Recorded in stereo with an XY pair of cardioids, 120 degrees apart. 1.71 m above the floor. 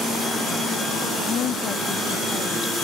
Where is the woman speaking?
55° left.